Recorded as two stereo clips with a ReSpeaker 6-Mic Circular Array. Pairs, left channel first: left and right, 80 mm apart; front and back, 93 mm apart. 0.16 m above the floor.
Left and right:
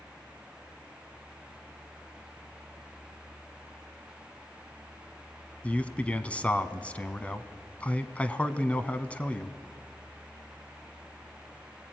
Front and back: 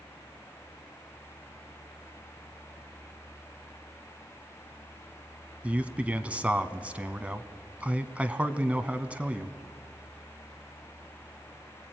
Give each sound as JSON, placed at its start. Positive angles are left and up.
{"t": 5.6, "sound": "a man speaking", "azimuth_deg": 130, "distance_m": 1.0}